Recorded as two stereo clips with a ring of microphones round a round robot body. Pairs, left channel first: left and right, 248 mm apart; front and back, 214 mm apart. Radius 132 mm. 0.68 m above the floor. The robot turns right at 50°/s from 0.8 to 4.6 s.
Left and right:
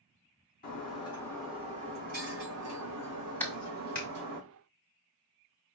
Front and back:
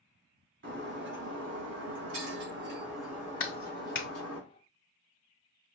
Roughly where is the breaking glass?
Behind left.